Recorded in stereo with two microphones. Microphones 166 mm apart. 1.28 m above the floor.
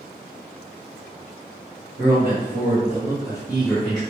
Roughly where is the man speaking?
Right.